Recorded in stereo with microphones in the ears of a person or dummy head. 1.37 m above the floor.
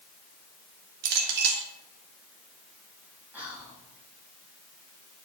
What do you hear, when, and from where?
1.0 s a clink: 70° right (ahead or behind), 1.4 m
3.3 s whispering: 5° right (ahead or behind), 3.5 m